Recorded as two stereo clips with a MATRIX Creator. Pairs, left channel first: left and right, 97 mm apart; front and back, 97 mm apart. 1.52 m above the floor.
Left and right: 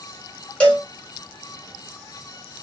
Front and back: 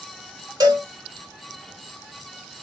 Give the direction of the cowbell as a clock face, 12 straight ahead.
7 o'clock.